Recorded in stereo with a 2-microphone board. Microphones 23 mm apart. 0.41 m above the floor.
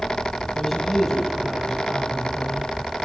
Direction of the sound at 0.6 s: 5° right (ahead or behind).